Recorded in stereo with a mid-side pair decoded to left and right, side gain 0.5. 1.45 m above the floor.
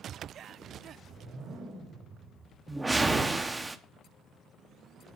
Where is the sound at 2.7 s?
15° right, 0.7 m.